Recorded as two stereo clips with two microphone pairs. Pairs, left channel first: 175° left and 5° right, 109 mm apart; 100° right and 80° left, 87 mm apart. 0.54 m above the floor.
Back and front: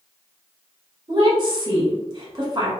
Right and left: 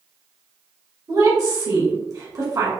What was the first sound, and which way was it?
A woman speaking, 45° left.